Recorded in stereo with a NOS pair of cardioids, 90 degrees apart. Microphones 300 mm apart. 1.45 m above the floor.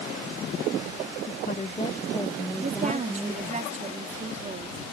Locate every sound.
1.3 s a woman speaking: 35° left; by 3.6 s 15° right
2.6 s a woman speaking: 25° right